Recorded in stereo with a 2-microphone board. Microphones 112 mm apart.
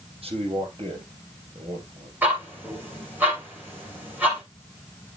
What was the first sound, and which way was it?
A man speaking, 60° right (ahead or behind).